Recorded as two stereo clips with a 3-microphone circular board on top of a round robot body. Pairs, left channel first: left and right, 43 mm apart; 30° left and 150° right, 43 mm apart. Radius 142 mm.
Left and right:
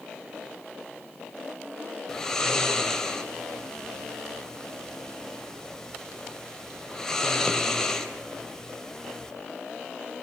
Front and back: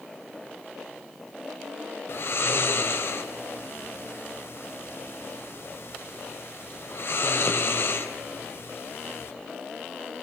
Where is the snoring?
10° left, 3 m.